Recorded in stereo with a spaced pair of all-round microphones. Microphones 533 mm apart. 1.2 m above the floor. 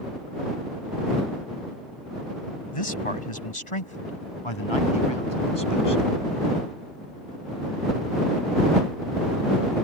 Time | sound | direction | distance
2.7 | a man speaking | 70° left (ahead or behind) | ?